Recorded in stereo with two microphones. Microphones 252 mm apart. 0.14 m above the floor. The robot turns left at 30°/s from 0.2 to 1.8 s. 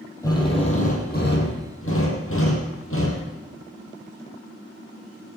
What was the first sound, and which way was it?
A drill, 165° left.